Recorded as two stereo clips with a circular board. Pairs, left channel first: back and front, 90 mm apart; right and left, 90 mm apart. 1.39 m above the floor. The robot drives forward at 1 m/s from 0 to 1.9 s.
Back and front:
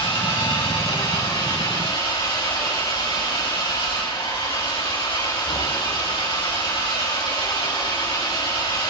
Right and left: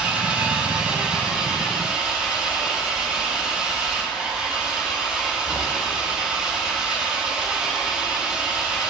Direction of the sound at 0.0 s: 165° left.